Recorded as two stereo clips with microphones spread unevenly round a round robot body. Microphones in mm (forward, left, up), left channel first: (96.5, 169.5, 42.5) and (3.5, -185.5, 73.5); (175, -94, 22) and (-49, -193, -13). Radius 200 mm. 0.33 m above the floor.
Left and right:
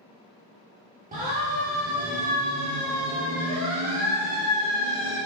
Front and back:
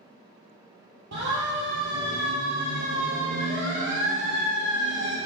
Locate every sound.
1.1 s a siren: 175° right, 8 m; by 5.2 s 170° right, 10 m